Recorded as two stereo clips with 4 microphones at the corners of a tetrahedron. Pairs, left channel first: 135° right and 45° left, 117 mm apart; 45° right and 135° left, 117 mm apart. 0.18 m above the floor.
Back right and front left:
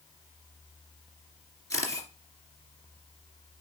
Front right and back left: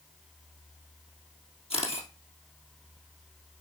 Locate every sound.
1.7 s a camera shutter: 75° right, 2.5 m